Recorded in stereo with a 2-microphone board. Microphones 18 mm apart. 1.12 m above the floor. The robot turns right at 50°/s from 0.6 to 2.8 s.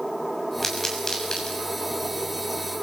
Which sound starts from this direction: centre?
A pop, at 0.6 s.